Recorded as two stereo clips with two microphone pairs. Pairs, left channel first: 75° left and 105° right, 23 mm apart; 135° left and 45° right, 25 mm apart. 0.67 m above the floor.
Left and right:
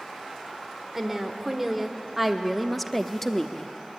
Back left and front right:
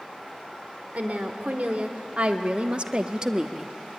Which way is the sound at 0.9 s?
25° right.